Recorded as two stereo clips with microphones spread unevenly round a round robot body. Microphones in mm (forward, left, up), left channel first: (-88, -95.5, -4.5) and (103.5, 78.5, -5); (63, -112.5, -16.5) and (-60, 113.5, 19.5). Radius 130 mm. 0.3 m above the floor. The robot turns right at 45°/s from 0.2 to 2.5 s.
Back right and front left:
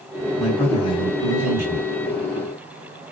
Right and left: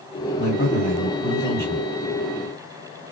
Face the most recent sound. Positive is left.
turn(degrees=50)